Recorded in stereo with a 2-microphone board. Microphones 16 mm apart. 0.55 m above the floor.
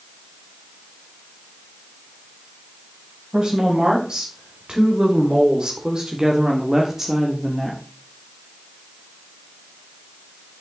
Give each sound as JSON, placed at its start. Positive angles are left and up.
{"t": 3.3, "sound": "a woman speaking", "side_deg": -60, "distance_m": 3.5}